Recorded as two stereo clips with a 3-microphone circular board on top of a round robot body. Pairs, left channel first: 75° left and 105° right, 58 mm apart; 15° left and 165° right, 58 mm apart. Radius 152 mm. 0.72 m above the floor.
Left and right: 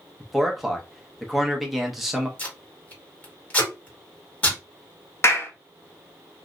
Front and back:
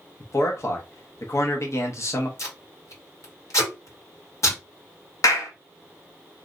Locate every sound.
0.2 s a man speaking: 20° right, 1.0 m
2.4 s tape being pulled: 15° left, 2.0 m
5.2 s a clap: 30° left, 0.9 m